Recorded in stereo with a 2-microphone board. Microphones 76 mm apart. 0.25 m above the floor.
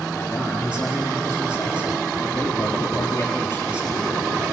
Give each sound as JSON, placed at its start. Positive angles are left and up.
{"t": 0.1, "sound": "a man speaking", "side_deg": 20, "distance_m": 4.5}